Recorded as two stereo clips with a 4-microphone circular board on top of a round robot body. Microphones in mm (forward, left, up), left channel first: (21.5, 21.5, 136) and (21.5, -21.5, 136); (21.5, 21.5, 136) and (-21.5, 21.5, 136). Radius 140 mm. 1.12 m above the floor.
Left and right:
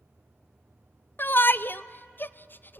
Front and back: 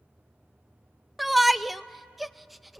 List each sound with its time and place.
1.2 s a shout: 95° left, 0.7 m